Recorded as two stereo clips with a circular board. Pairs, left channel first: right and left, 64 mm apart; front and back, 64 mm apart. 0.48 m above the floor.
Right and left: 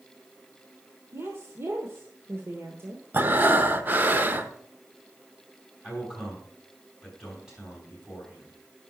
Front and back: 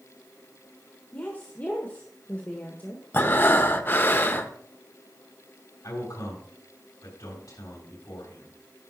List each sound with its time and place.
1.1 s a woman speaking: 55° left, 1.2 m
3.1 s breathing: 45° left, 0.8 m
5.8 s a man speaking: 10° left, 4 m